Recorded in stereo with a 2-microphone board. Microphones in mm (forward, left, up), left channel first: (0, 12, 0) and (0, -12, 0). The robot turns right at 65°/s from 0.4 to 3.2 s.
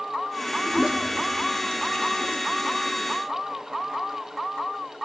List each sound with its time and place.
0.7 s a toilet flushing: 35° right (ahead or behind), 1.8 m; by 2.4 s 75° left (ahead or behind), 1.8 m